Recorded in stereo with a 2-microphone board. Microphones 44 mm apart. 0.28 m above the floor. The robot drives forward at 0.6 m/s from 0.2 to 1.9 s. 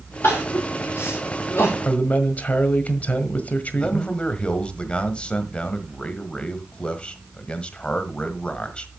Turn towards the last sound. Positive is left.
turn(degrees=25)  # may be behind; listen again after turning